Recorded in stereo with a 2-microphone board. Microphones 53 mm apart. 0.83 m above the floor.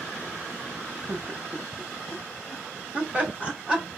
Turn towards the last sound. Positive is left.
turn(degrees=-20)  # may be behind; listen again after turning